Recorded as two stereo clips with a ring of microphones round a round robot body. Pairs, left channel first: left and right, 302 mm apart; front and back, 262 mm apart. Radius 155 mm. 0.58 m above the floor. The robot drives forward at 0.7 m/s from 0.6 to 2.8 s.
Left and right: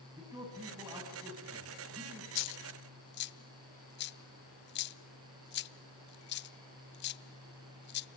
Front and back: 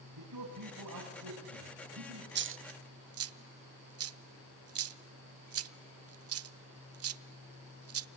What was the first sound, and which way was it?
A man speaking, 170° right.